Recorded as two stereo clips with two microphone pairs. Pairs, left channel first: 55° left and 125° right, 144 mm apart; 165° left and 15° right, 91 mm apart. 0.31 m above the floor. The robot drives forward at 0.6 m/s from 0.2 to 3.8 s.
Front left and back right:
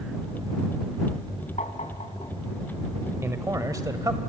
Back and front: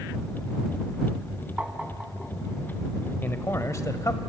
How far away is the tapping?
About 1.7 m.